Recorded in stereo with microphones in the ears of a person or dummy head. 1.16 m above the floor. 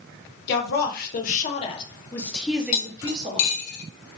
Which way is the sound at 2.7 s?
50° left (ahead or behind).